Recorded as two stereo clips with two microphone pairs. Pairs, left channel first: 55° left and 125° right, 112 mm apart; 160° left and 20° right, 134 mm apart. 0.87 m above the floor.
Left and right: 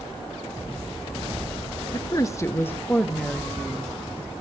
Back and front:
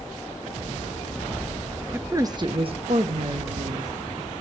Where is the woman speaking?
40° left, 0.9 m; by 3.9 s 30° right, 1.8 m.